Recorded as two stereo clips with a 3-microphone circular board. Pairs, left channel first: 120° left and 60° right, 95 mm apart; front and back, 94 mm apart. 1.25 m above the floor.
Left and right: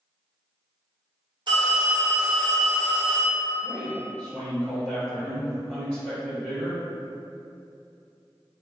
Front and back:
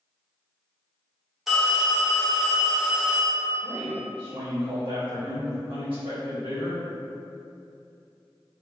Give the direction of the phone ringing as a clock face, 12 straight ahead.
3 o'clock.